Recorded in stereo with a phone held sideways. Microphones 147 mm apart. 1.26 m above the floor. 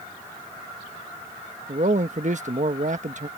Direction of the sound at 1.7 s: 55° right (ahead or behind).